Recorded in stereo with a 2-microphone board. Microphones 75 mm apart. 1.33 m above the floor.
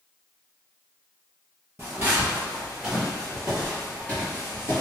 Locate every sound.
1.8 s footsteps: 25° right (ahead or behind), 1.5 m; by 4.8 s 35° left (ahead or behind), 1.5 m